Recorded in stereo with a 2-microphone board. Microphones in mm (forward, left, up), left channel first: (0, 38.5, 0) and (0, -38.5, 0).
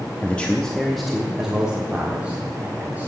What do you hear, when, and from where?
0.2 s a man speaking: 20° left (ahead or behind), 0.8 m; by 3.1 s 20° right (ahead or behind), 2 m